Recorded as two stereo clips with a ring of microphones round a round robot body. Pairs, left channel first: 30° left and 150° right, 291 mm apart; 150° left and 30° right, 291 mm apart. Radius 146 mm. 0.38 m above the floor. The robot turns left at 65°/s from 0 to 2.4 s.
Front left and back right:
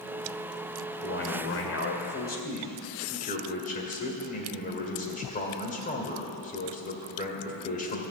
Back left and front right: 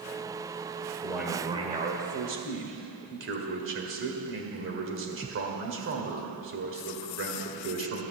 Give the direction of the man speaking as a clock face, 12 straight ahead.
10 o'clock.